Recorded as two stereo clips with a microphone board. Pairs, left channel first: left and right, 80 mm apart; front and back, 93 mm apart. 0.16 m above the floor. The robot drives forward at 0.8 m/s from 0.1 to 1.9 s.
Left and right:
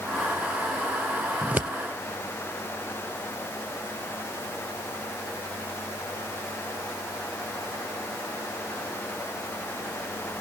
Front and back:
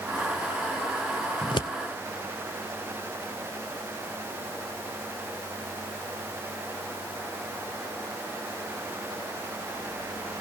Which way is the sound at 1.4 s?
20° right.